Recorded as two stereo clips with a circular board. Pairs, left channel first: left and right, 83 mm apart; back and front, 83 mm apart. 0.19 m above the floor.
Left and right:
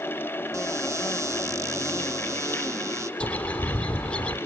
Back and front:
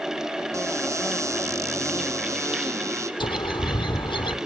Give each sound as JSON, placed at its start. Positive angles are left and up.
{"t": 0.5, "sound": "a cupboard door", "azimuth_deg": -45, "distance_m": 1.3}
{"t": 3.2, "sound": "a bird", "azimuth_deg": 165, "distance_m": 1.6}